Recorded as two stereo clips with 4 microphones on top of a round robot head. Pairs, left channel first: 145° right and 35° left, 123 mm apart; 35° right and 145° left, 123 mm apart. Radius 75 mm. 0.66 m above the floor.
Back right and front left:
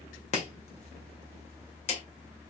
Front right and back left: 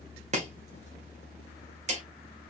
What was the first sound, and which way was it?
Chopping, 175° left.